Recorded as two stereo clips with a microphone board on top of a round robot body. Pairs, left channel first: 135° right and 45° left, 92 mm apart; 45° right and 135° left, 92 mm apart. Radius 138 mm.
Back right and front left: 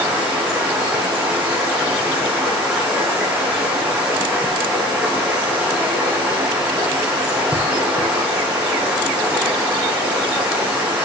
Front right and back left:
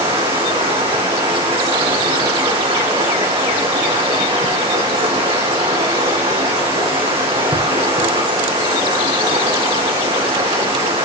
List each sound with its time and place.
0.0 s running water: 125° left, 6.5 m